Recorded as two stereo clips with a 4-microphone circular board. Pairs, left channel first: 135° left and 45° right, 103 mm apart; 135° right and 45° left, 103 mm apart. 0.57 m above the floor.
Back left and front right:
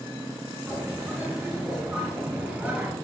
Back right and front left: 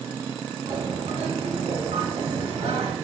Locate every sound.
0.7 s a bird: 35° left, 2.5 m